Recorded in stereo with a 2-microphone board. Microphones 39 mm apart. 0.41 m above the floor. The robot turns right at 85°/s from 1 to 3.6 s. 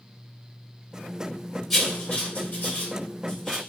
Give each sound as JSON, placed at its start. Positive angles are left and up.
{"t": 1.7, "sound": "writing", "side_deg": 0, "distance_m": 1.5}